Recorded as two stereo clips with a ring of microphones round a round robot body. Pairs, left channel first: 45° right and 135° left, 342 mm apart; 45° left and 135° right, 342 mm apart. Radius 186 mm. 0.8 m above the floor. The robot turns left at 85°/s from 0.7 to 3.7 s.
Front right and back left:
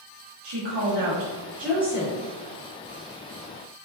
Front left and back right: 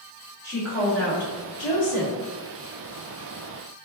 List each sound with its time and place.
0.4 s a woman speaking: 125° left, 1.3 m; by 2.1 s 5° left, 1.3 m